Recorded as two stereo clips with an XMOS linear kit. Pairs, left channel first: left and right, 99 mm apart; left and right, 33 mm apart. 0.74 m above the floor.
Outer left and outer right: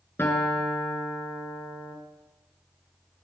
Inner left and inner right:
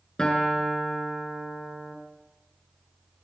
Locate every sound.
0.2 s a guitar: 25° left (ahead or behind), 4.5 m